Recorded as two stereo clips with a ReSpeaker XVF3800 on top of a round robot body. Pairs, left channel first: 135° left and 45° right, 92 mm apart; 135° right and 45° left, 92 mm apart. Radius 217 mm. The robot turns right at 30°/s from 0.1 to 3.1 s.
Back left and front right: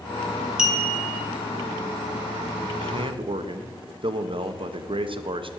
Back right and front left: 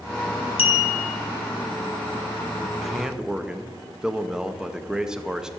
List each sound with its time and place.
0.6 s a clink: 125° right, 1.3 m; by 1.2 s 110° right, 1.3 m
2.8 s a man speaking: 50° right, 0.9 m; by 5.5 s 40° right, 0.9 m